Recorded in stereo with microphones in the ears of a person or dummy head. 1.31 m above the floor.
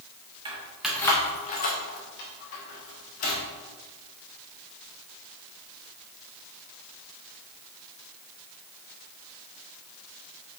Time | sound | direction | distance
0.5 | keys jangling | 20° right (ahead or behind) | 0.7 m